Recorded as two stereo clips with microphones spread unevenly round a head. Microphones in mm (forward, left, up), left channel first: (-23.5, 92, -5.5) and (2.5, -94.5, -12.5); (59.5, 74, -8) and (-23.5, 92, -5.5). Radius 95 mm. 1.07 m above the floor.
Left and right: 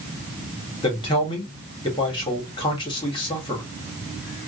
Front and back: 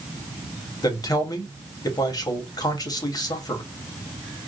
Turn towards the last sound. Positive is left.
turn(degrees=30)